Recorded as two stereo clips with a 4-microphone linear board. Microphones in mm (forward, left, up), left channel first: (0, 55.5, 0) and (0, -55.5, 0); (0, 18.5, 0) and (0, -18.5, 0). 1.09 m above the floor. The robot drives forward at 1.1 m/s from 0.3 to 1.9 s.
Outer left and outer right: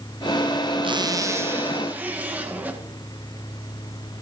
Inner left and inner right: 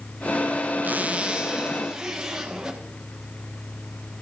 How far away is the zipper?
About 0.5 m.